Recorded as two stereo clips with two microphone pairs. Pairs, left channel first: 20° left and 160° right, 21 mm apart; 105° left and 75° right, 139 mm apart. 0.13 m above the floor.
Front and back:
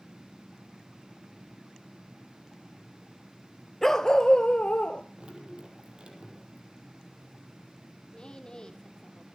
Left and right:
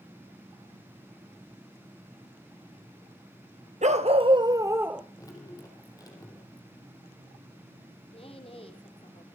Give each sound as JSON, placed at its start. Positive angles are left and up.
{"t": 3.8, "sound": "a dog barking", "azimuth_deg": -60, "distance_m": 1.0}
{"t": 5.2, "sound": "dripping", "azimuth_deg": 165, "distance_m": 5.5}
{"t": 8.1, "sound": "a woman speaking", "azimuth_deg": 60, "distance_m": 4.5}